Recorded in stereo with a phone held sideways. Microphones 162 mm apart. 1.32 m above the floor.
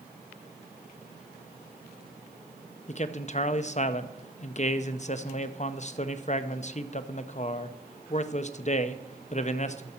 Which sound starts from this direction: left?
A man speaking, at 2.9 s.